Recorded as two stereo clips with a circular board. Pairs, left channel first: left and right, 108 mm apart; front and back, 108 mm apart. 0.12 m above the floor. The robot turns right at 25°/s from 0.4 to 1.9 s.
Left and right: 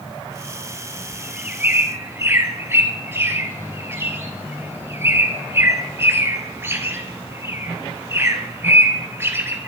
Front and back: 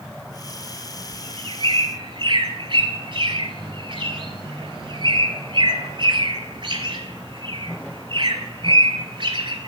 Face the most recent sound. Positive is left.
turn(degrees=-155)